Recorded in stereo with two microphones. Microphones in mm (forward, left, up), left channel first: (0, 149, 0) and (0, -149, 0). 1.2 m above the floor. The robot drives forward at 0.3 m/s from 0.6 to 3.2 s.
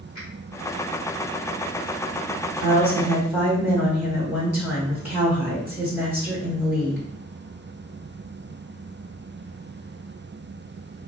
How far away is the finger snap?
About 1.6 m.